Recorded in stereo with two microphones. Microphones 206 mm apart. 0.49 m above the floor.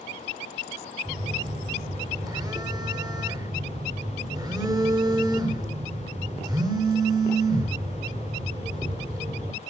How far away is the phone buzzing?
About 1.6 m.